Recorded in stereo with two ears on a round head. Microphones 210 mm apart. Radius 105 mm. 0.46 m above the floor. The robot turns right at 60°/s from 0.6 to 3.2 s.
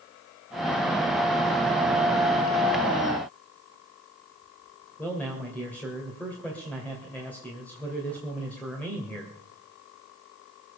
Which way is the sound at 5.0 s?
5° left (ahead or behind).